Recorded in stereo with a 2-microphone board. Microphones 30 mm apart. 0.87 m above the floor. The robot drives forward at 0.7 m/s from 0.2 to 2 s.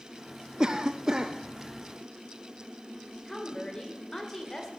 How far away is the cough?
About 0.6 m.